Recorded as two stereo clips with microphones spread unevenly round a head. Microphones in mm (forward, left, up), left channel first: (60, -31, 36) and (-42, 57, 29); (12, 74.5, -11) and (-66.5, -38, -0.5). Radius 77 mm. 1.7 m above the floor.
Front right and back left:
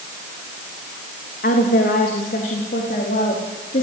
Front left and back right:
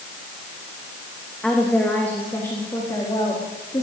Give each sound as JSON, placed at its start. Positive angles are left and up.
{"t": 1.4, "sound": "a woman speaking", "azimuth_deg": -30, "distance_m": 3.0}